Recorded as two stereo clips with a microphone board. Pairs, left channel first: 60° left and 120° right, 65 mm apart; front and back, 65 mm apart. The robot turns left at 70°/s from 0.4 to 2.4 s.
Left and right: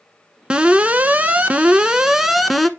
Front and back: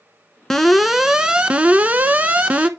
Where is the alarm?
75° right, 1.0 m; by 2.7 s 155° left, 1.0 m.